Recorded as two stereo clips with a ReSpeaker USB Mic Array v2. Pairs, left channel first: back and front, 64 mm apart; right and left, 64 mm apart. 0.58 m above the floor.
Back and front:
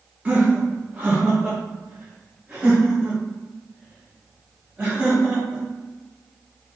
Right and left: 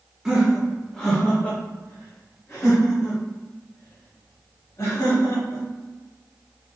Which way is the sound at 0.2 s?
25° left.